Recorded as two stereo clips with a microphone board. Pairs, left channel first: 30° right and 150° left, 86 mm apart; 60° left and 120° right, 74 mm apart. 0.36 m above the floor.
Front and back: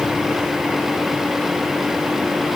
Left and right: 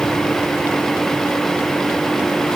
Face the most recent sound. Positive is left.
No sound to turn to.